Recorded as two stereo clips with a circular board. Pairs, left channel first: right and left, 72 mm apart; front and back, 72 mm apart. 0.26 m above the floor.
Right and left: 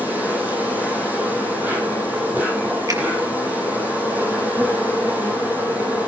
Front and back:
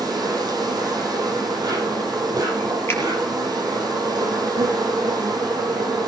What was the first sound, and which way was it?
An insect, 160° left.